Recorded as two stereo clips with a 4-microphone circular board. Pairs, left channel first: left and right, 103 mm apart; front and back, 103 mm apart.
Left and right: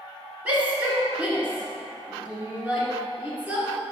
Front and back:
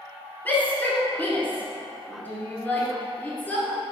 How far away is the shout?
About 1.5 m.